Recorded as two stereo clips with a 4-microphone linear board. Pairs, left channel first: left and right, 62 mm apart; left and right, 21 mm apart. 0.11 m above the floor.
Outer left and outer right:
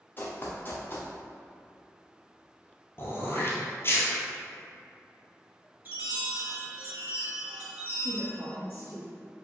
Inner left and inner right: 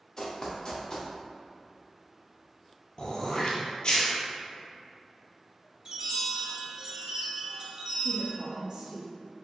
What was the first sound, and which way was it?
Running footsteps, 35° left (ahead or behind).